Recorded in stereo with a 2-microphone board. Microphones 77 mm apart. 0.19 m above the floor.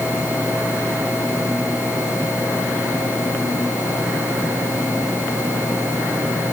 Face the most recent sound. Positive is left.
No sound to turn to.